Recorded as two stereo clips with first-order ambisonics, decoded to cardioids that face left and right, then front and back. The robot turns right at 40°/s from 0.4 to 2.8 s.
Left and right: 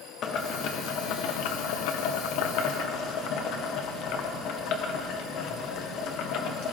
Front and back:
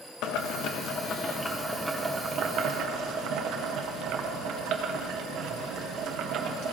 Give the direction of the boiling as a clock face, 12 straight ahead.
11 o'clock.